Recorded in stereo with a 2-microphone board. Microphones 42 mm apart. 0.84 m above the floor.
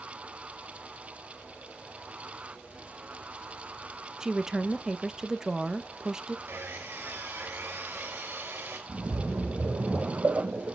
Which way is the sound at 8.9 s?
60° right (ahead or behind).